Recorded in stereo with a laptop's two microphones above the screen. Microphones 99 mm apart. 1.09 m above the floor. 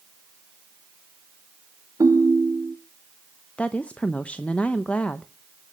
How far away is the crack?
I don't hear a crack.